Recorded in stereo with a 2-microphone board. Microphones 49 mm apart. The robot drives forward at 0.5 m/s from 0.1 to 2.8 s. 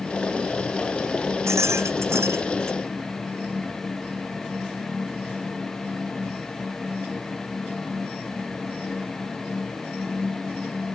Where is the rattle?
75° right (ahead or behind); by 2.8 s 70° right (ahead or behind).